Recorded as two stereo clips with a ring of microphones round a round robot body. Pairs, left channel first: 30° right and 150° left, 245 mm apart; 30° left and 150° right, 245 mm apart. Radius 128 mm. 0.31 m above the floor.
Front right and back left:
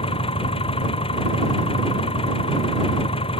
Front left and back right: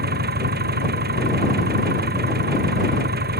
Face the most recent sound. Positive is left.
turn(degrees=-100)